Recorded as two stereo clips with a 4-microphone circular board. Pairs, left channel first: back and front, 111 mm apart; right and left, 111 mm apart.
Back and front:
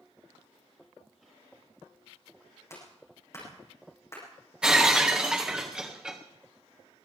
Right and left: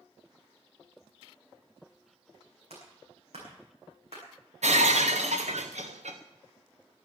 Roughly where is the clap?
Behind left.